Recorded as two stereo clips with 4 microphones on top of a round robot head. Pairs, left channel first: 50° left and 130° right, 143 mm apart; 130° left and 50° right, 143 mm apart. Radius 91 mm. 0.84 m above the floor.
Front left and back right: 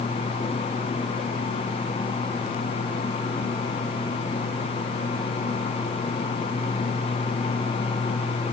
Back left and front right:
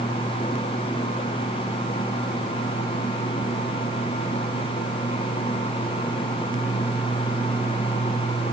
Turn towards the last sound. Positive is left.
No sound to turn to.